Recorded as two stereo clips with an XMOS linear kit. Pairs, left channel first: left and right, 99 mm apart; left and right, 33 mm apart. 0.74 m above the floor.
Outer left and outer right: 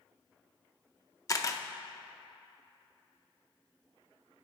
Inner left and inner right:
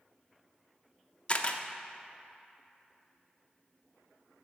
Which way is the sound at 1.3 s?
35° left (ahead or behind).